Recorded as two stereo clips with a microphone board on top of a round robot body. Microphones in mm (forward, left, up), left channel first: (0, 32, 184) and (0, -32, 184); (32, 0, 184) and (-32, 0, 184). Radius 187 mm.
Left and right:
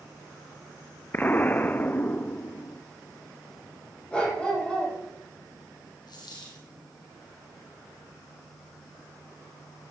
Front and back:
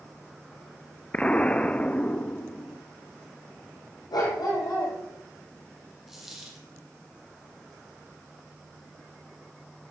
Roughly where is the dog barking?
Ahead.